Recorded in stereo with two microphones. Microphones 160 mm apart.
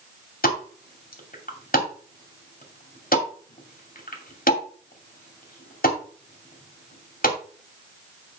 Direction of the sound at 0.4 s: 60° left (ahead or behind).